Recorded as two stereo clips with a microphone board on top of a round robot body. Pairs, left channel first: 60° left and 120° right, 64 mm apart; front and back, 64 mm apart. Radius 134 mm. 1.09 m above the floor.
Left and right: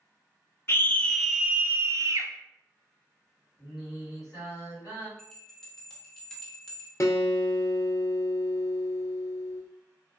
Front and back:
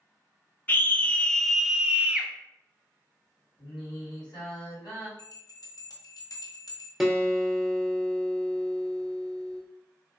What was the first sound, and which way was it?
A scream, 40° left.